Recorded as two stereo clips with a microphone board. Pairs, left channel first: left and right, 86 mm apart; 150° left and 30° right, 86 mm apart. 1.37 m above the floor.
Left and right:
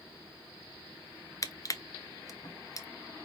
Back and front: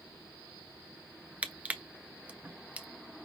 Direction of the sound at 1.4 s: 45° left.